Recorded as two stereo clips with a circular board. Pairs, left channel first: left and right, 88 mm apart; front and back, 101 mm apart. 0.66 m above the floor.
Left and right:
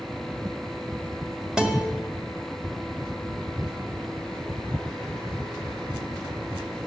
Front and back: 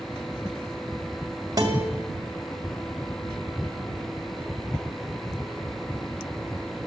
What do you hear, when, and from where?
1.6 s a guitar: 165° right, 1.4 m